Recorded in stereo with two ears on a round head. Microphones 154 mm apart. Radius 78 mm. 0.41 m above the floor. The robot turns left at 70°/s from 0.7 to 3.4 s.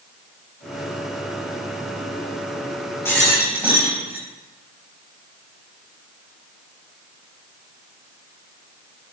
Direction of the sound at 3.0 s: 15° left (ahead or behind).